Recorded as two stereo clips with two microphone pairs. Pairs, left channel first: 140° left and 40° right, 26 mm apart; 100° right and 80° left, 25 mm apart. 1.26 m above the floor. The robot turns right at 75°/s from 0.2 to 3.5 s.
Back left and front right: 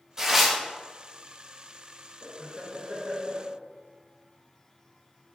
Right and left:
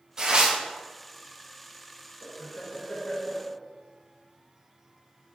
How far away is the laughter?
About 0.8 m.